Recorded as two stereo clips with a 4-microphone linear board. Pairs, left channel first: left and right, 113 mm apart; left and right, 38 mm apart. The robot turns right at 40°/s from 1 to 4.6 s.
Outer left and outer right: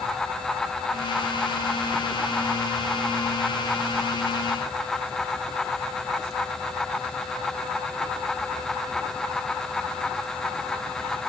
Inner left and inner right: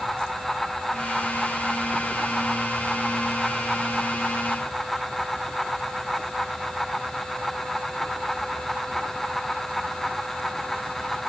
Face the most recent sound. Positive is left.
No sound to turn to.